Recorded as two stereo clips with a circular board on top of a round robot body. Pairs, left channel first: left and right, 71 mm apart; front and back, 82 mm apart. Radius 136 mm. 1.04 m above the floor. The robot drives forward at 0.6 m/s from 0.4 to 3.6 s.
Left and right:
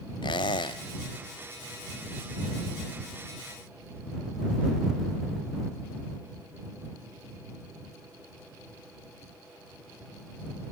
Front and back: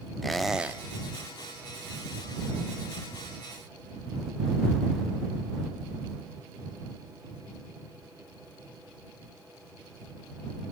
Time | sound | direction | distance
0.2 | a squeak | 90° left | 0.7 m